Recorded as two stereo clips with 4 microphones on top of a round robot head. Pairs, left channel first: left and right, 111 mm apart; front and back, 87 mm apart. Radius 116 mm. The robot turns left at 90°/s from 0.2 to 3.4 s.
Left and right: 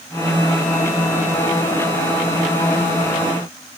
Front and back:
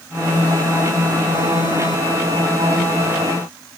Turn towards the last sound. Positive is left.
No sound to turn to.